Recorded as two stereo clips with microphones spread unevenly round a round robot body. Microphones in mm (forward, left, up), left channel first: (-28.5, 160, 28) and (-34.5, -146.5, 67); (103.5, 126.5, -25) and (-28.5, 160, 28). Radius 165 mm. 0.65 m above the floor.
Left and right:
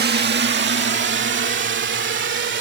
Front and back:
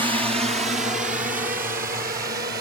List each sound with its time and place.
0.0 s a drone: 125° right; by 2.6 s 145° right